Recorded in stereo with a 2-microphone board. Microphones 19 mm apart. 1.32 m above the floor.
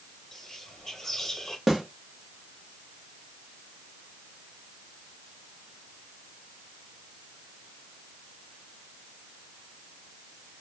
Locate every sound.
0.3 s whispering: 25° left (ahead or behind), 0.9 m
1.7 s a snare drum: 20° right (ahead or behind), 0.9 m